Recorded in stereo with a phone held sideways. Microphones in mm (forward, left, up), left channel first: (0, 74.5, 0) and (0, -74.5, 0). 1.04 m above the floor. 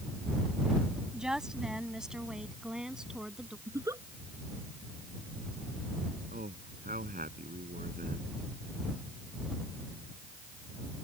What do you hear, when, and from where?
1.1 s a woman speaking: 5° right (ahead or behind)
3.7 s a giggle: 20° right (ahead or behind)
6.3 s a man speaking: 80° right